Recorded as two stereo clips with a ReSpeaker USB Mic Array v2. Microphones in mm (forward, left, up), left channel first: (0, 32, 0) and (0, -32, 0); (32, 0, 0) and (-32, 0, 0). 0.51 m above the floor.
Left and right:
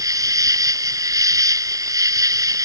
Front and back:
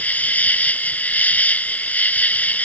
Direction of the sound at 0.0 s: 65° right.